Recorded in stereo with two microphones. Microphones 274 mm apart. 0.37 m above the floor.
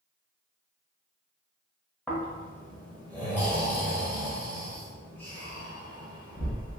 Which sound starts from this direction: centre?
Snoring, at 2.1 s.